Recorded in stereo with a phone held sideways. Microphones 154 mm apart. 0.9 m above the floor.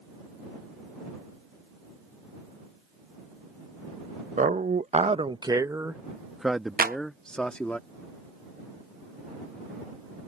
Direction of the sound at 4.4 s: 55° right (ahead or behind).